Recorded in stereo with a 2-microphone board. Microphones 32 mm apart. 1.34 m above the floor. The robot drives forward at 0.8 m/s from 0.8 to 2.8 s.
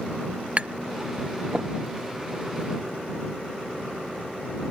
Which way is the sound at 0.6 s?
40° right (ahead or behind).